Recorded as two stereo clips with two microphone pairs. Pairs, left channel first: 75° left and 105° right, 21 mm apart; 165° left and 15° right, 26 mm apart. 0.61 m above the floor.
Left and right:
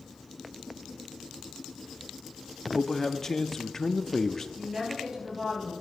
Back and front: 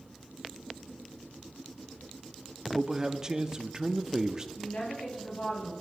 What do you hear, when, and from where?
2.7 s a man speaking: 15° left, 0.6 m
4.6 s a woman speaking: 170° right, 5 m